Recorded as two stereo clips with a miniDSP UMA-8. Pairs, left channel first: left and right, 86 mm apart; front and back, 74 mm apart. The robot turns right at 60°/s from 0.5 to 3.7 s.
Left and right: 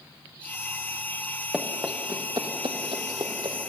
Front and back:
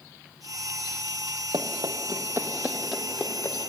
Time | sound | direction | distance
1.5 | running footsteps | 175° right | 2.5 m